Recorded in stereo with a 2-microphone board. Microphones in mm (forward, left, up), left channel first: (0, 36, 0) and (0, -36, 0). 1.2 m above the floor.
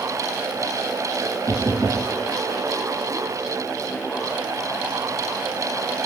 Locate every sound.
1.5 s knocking: 60° right (ahead or behind), 1.4 m